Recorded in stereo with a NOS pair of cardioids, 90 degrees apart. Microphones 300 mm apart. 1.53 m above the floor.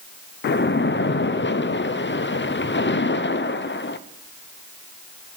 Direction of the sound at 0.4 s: 40° left.